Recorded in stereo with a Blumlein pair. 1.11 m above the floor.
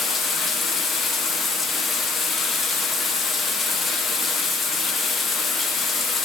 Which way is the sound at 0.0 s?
20° left.